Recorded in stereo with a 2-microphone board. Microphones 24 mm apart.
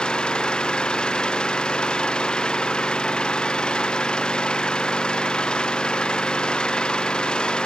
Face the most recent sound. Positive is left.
turn(degrees=40)  # may be behind; listen again after turning